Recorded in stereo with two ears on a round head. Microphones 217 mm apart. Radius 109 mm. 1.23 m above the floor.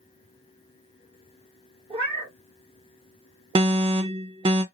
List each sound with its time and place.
1.9 s a cat meowing: 25° right (ahead or behind), 0.9 m
3.5 s an alarm: 20° right (ahead or behind), 0.6 m